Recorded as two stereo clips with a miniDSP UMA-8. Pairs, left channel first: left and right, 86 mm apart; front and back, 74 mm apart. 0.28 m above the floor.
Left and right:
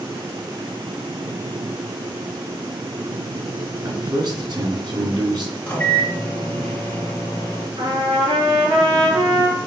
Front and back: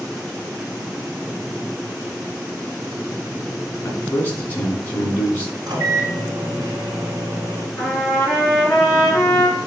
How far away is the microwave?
About 2 m.